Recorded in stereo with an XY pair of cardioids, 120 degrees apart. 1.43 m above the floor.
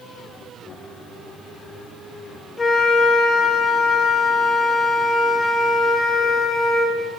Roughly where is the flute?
Ahead left.